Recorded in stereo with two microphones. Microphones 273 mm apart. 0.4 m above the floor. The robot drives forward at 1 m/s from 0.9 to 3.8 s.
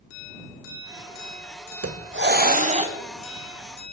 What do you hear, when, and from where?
1.8 s a hiss: 60° right (ahead or behind), 0.7 m; by 3.0 s 20° right (ahead or behind), 1.5 m